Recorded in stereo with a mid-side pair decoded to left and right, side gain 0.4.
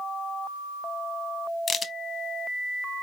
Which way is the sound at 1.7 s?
50° left.